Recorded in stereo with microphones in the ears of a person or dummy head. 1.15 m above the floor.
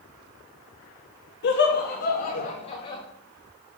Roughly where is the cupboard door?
No cupboard door in this recording.